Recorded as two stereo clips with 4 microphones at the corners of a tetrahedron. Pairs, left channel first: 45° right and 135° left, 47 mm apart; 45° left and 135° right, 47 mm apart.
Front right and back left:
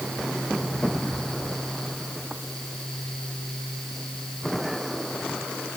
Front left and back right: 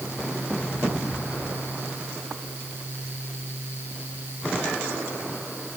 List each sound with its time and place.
Only background noise.